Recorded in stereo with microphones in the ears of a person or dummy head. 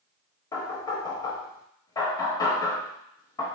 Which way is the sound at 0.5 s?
20° left (ahead or behind).